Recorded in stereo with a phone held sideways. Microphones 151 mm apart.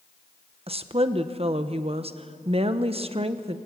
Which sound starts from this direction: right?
A woman speaking, at 0.7 s.